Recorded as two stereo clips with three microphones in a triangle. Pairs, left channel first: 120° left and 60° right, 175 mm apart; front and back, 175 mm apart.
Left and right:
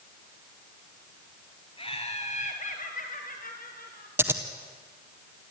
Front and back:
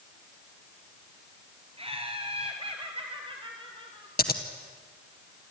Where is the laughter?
150° left, 1.7 m; by 4.1 s 125° left, 3 m.